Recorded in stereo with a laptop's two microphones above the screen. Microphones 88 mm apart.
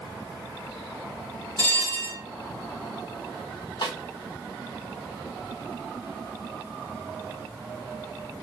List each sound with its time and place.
1.6 s a bell: 50° right (ahead or behind), 1.3 m
3.8 s a snare drum: 65° left (ahead or behind), 1.2 m